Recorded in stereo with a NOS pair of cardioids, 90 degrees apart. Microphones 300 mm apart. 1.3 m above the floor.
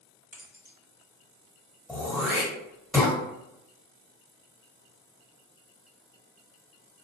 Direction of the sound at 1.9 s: Straight ahead.